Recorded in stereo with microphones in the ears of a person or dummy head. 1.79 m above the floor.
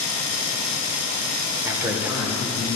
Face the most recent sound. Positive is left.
turn(degrees=-5)  # may be behind; listen again after turning